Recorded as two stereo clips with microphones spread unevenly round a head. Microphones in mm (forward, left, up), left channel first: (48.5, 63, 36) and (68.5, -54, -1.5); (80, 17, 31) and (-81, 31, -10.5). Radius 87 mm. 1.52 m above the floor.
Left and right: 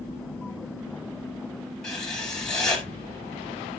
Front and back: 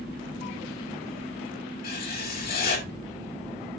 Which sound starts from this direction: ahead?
Writing, at 1.8 s.